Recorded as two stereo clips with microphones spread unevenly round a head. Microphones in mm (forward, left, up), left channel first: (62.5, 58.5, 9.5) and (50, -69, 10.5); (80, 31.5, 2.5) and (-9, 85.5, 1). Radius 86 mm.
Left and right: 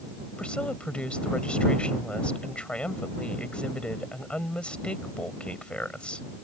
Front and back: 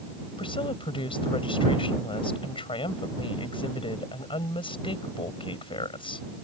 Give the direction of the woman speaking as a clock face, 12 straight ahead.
12 o'clock.